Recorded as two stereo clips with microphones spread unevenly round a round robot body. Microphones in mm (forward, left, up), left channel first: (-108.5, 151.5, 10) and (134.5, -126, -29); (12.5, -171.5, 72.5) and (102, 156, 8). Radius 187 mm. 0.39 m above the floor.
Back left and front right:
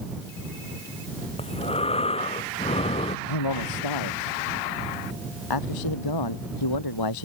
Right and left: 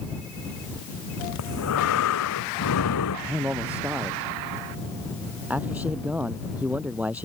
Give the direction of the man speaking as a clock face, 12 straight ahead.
7 o'clock.